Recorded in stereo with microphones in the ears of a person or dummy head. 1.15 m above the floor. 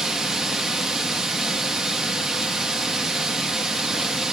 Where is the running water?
Centre (ahead or behind), 0.7 m.